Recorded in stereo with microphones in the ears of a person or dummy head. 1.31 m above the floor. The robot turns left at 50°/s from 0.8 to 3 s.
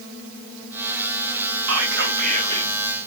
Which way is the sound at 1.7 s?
115° right.